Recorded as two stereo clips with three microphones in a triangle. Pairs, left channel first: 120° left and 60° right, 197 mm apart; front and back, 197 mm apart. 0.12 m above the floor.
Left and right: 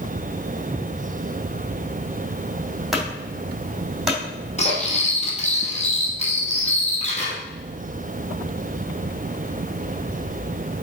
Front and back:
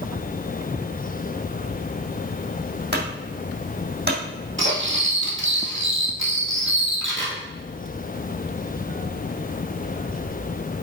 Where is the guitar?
I don't hear a guitar.